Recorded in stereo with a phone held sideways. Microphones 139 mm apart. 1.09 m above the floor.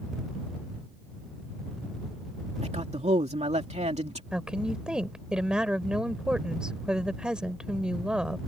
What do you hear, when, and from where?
2.6 s a man speaking: 55° right (ahead or behind)
4.3 s a woman speaking: 5° right (ahead or behind)